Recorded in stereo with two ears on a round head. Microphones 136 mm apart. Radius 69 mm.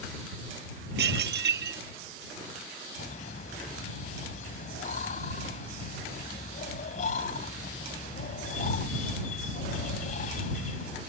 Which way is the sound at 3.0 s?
55° left (ahead or behind).